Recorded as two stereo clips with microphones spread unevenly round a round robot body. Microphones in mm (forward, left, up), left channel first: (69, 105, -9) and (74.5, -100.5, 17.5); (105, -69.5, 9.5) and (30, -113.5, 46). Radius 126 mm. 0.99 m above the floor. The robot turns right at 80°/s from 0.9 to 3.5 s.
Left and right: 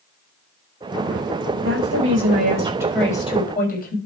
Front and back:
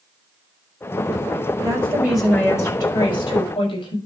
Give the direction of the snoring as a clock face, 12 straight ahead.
No snoring in this recording.